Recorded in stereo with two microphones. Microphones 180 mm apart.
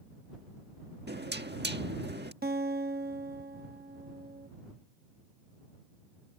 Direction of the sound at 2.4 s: 60° right (ahead or behind).